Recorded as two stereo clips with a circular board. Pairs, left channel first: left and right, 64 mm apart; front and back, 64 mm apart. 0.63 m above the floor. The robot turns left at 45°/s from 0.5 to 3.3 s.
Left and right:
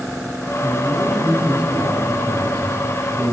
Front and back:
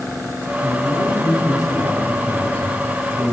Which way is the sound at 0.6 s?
20° left.